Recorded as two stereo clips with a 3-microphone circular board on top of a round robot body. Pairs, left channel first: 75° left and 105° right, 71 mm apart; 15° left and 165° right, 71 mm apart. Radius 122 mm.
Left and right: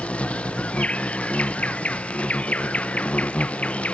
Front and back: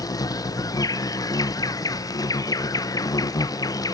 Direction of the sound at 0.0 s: 5° left.